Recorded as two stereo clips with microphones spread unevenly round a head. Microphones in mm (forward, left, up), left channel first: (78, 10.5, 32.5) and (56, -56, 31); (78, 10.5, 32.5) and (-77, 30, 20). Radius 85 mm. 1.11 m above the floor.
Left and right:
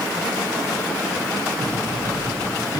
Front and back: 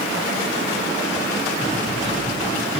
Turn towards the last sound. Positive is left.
turn(degrees=45)